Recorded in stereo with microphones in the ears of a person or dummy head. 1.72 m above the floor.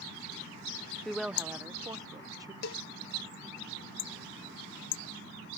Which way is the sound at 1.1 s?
Centre (ahead or behind).